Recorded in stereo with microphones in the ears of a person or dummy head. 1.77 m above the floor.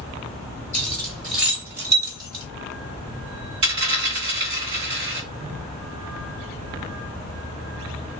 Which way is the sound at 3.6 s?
35° right (ahead or behind).